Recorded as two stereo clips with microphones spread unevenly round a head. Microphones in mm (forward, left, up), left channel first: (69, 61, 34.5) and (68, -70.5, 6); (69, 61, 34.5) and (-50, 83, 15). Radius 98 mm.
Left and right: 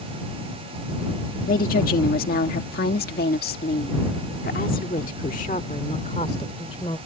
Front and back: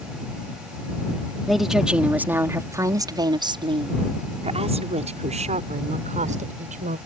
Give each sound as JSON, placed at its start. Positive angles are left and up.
{"t": 1.5, "sound": "a woman speaking", "azimuth_deg": 80}